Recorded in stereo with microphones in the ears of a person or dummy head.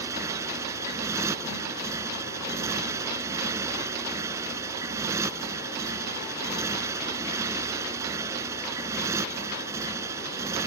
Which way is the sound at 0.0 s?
15° right (ahead or behind).